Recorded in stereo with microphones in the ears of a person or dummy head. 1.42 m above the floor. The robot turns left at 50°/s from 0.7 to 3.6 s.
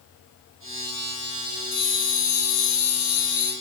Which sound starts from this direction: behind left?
A bell, at 1.7 s.